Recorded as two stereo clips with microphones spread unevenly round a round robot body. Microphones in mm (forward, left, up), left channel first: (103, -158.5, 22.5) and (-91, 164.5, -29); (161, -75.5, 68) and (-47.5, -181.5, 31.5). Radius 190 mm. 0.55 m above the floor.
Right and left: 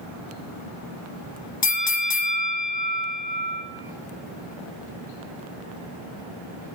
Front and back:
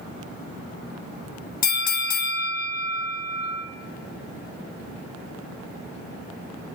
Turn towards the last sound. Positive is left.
turn(degrees=0)